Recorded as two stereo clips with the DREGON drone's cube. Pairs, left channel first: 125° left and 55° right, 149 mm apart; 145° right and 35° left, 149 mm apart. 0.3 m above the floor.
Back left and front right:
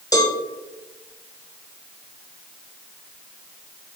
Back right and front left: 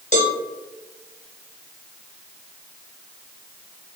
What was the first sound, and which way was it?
A cowbell, 175° right.